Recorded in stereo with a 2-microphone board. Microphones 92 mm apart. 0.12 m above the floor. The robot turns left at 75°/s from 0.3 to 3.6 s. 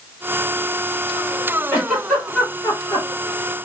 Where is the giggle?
25° right (ahead or behind), 3 m; by 3.1 s 55° left (ahead or behind), 3 m.